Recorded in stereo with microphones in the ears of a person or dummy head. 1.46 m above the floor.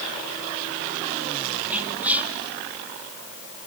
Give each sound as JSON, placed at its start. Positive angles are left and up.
{"t": 1.7, "sound": "whispering", "side_deg": -10, "distance_m": 1.8}